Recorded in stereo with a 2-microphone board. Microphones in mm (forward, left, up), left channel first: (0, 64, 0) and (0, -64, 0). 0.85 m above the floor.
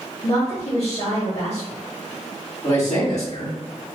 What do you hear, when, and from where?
0.2 s a woman speaking: 60° left (ahead or behind), 1.3 m
2.6 s a man speaking: 65° left (ahead or behind), 2.0 m